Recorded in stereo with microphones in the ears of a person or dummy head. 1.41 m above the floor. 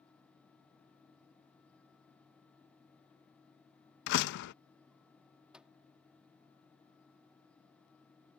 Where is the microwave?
5° right (ahead or behind).